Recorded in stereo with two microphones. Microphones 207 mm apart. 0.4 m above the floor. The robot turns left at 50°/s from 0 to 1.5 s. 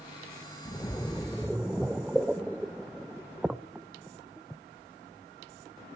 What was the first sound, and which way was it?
A splash, 20° left (ahead or behind).